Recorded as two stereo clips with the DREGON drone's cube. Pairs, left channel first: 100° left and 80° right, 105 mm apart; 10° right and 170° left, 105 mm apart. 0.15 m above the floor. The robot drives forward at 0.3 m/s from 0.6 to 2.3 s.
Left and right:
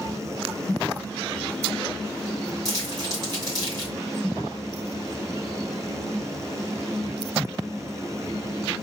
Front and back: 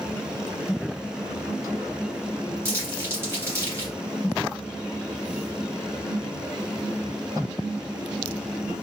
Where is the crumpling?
130° right, 2 m.